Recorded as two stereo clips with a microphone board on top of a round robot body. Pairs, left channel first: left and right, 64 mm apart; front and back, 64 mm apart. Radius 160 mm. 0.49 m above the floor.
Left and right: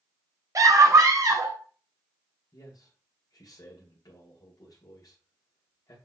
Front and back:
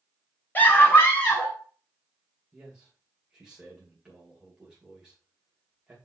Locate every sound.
0.6 s a scream: 60° right, 2.5 m; by 1.6 s 55° right, 4 m
2.5 s a man speaking: 100° left, 2 m